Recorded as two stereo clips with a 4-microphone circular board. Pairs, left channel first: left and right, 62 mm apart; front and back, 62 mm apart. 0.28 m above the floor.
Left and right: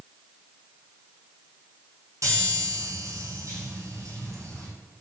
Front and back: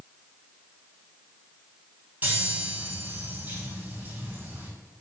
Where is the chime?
125° right, 3.5 m.